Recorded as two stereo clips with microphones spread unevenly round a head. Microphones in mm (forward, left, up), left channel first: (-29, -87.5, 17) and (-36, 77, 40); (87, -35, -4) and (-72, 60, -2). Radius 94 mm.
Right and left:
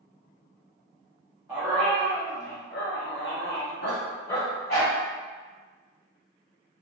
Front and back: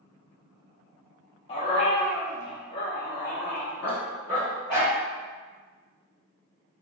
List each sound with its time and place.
1.5 s a dog barking: 25° left, 0.6 m; by 5.0 s 120° right, 1.5 m